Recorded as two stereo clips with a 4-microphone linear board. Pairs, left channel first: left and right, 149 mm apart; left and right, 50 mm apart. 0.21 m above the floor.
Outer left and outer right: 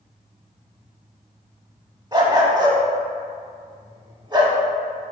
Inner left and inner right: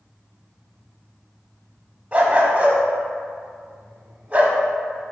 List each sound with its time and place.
2.1 s a dog barking: 25° right (ahead or behind), 0.5 m